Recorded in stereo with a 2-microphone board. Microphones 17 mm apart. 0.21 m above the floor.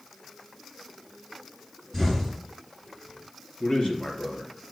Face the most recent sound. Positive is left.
turn(degrees=65)  # may be behind; listen again after turning